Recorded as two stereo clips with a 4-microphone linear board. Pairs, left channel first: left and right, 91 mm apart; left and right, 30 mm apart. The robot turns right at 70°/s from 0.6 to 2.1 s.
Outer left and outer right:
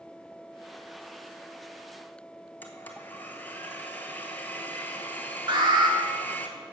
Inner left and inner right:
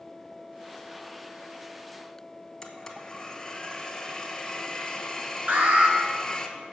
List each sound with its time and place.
2.6 s a blender: 15° left (ahead or behind), 1.0 m
5.5 s an alarm: 50° right (ahead or behind), 1.9 m